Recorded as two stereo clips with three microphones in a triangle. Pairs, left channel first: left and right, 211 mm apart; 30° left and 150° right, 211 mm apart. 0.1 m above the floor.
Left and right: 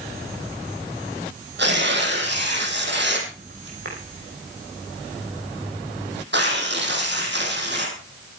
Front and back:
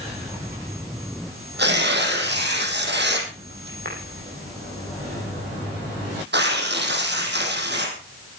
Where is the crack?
I don't hear a crack.